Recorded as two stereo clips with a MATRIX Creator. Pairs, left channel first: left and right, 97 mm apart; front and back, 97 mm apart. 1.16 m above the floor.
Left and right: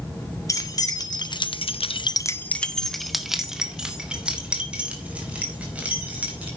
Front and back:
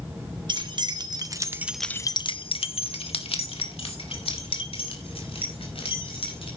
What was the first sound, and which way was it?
Keys jangling, 145° left.